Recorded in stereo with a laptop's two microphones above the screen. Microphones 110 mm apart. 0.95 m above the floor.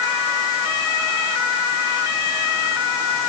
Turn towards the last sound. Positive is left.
No sound to turn to.